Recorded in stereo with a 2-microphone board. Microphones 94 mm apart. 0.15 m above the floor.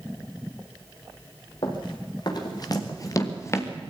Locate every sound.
1.6 s running footsteps: 55° left (ahead or behind), 5 m; by 3.7 s 25° left (ahead or behind), 3 m